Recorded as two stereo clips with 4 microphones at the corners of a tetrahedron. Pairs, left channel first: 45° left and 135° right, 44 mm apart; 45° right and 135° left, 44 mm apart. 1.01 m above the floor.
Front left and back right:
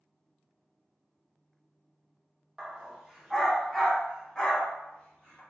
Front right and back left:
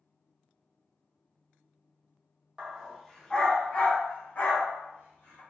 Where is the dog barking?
175° left, 0.6 m; by 5.4 s 25° right, 1.3 m.